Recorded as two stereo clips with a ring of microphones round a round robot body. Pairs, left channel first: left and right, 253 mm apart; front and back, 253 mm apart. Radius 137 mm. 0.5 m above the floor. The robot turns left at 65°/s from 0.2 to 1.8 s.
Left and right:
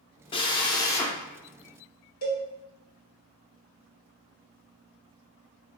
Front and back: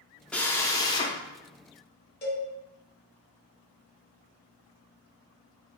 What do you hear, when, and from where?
0.3 s a drill: 75° left, 0.5 m; by 1.2 s 20° left, 0.5 m
2.2 s a cowbell: 40° left, 1.4 m